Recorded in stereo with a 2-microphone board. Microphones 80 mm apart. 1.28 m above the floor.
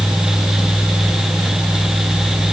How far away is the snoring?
No snoring in this recording.